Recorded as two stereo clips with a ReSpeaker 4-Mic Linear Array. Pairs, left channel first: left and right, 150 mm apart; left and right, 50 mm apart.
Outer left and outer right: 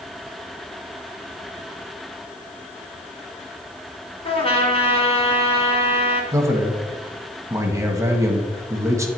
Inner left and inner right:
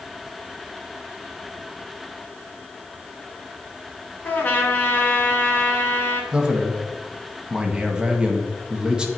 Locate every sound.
4.2 s a trumpet: 40° left (ahead or behind), 1.8 m
6.3 s a man speaking: 20° right (ahead or behind), 1.4 m